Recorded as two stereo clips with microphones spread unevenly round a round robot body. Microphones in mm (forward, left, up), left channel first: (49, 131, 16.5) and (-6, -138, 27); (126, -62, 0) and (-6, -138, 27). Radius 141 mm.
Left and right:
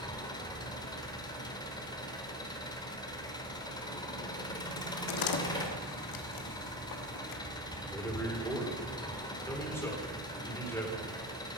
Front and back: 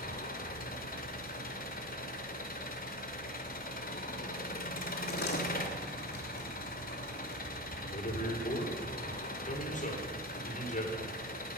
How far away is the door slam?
About 1.2 m.